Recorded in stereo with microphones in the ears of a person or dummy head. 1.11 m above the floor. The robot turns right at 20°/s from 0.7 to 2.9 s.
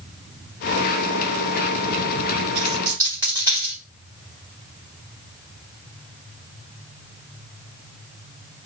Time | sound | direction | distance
2.5 | a dropped coin | 15° right (ahead or behind) | 3.5 m